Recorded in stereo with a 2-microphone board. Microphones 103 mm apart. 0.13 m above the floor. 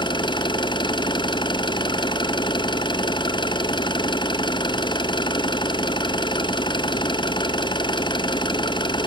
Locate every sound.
0.0 s an engine running: 50° left (ahead or behind), 0.9 m